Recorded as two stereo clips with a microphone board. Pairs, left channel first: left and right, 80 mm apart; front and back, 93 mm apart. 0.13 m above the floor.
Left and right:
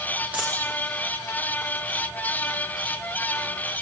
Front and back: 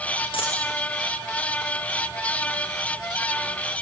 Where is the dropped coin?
20° right, 6.5 m.